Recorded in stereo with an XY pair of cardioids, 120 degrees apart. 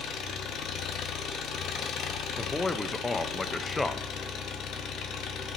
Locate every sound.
0.0 s an engine running: 60° left, 1.0 m
2.4 s a man speaking: 15° left, 0.6 m